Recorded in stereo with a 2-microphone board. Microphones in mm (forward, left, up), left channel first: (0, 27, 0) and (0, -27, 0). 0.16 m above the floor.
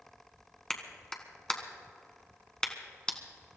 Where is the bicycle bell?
No bicycle bell in this recording.